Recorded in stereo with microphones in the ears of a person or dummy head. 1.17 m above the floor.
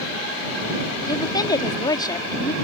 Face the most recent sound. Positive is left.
turn(degrees=20)  # may be behind; listen again after turning